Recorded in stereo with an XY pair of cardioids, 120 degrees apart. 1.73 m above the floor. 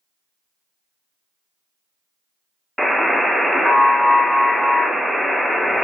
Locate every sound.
2.8 s a buzzer: 5° left, 0.6 m